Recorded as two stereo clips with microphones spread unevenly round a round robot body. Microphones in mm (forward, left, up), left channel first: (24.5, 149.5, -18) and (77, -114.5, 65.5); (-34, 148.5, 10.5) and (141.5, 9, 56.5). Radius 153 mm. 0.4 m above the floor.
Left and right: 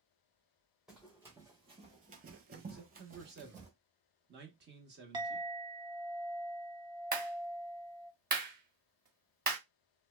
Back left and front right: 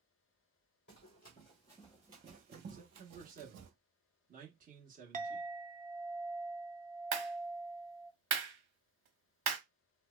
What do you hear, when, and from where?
0.9 s running footsteps: 160° right, 0.8 m; by 3.7 s 20° right, 1.0 m
2.7 s a man speaking: 50° right, 0.8 m
5.1 s a clink: 15° left, 0.6 m
7.1 s a clap: 10° right, 1.0 m